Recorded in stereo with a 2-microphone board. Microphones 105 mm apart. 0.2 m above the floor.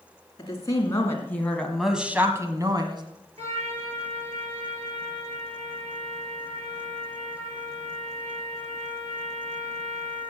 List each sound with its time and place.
0.4 s a woman speaking: 35° left (ahead or behind), 3 m; by 3.0 s 45° right (ahead or behind), 2.0 m
3.4 s a trumpet: 70° right (ahead or behind), 4 m